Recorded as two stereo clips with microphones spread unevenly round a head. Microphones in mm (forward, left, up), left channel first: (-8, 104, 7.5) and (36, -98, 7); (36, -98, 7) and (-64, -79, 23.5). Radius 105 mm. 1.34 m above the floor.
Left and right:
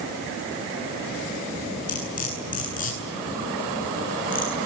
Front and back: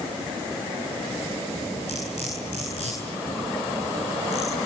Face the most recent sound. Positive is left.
turn(degrees=50)